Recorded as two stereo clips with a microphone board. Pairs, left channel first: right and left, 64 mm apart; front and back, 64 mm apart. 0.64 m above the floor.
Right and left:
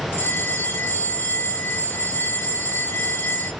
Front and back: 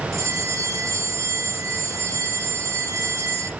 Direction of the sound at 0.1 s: 145° right.